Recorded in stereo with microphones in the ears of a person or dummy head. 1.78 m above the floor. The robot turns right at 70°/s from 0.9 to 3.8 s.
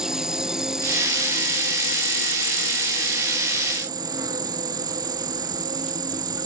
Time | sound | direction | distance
0.0 | an insect | 5° right | ?